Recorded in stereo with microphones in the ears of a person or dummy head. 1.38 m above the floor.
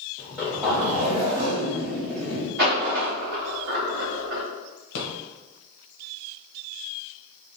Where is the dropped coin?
55° right (ahead or behind), 1.4 m.